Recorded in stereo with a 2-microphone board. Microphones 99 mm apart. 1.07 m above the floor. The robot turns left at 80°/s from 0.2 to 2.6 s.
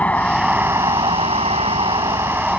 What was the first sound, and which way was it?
A vehicle, 15° left.